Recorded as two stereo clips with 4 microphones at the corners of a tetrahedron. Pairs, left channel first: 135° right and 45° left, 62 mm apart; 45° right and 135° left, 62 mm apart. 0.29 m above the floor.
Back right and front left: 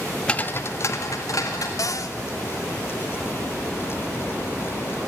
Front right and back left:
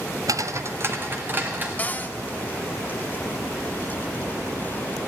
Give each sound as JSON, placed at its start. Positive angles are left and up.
{"t": 0.3, "sound": "footsteps", "azimuth_deg": 150, "distance_m": 0.6}
{"t": 1.8, "sound": "a cupboard door", "azimuth_deg": -110, "distance_m": 0.6}